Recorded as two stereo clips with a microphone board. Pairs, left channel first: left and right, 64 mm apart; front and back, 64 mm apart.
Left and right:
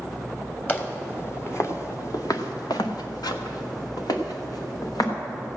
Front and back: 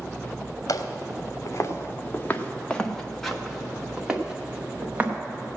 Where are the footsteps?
30° left, 1.7 m; by 5.1 s 110° left, 2.5 m.